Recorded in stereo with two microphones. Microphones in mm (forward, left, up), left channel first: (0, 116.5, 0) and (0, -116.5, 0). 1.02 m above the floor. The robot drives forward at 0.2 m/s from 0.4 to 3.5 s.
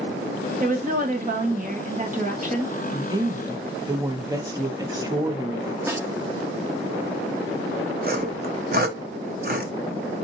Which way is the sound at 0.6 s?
35° right (ahead or behind).